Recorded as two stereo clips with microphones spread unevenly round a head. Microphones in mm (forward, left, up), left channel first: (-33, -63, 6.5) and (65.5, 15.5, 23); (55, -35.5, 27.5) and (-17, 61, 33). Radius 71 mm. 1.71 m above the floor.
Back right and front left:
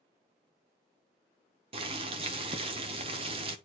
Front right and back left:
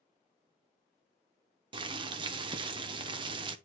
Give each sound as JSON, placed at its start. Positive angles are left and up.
{"t": 1.7, "sound": "boiling", "azimuth_deg": 85, "distance_m": 1.0}